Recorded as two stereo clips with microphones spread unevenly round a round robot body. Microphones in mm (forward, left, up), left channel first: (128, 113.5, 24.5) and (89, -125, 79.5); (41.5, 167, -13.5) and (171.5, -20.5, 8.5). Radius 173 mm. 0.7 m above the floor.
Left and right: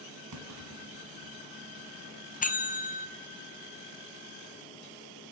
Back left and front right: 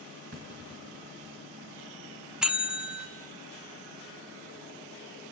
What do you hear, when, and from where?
0.3 s a clunk: 115° right, 2.5 m
2.4 s a bell: 35° left, 1.4 m